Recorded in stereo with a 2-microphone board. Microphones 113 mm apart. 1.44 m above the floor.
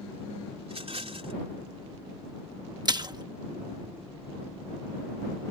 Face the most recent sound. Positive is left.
turn(degrees=-40)  # may be behind; listen again after turning